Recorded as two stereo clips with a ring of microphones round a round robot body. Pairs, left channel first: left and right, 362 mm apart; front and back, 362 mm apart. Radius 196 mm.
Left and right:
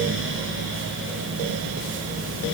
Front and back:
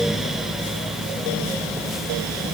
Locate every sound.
Only background noise.